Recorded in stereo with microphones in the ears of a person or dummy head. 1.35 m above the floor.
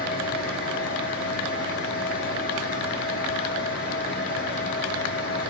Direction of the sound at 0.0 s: 55° left (ahead or behind).